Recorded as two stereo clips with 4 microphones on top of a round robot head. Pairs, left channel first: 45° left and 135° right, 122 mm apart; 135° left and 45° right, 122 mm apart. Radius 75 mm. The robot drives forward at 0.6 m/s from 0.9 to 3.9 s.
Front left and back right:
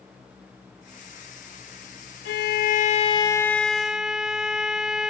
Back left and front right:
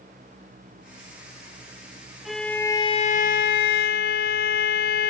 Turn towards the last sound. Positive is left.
turn(degrees=140)